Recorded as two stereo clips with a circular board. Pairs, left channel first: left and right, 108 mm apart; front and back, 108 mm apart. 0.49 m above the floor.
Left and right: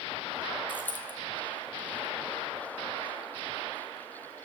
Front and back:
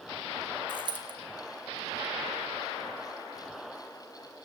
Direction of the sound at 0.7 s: 160° left.